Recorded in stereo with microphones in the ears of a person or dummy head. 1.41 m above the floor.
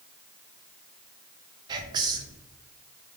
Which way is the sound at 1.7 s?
25° right (ahead or behind).